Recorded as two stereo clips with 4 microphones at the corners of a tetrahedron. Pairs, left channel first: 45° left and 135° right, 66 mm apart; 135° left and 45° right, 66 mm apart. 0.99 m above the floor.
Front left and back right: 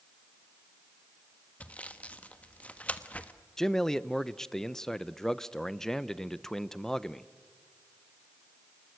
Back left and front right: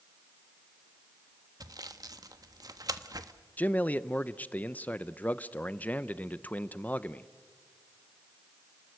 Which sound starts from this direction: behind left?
A man speaking, at 3.6 s.